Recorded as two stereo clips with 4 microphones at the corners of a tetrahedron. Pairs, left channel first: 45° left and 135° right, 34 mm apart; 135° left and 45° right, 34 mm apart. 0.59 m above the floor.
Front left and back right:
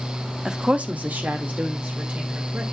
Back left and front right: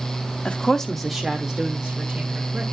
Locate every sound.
0.5 s a woman speaking: 170° left, 0.8 m; by 2.6 s 110° right, 3 m